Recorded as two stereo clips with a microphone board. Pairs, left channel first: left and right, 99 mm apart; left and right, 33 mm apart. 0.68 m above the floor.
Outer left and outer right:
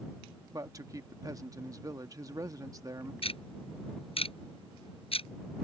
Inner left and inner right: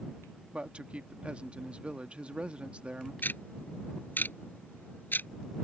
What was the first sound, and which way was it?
A man speaking, 35° right (ahead or behind).